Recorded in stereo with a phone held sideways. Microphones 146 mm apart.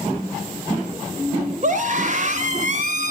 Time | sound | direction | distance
1.6 | a scream | 55° right (ahead or behind) | 3.5 m